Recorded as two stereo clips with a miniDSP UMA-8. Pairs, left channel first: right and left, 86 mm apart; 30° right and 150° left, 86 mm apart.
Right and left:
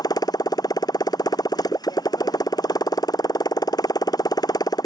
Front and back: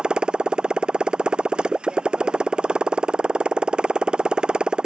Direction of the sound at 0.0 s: 130° right.